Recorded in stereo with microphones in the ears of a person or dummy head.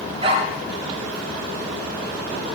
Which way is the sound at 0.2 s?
40° right (ahead or behind).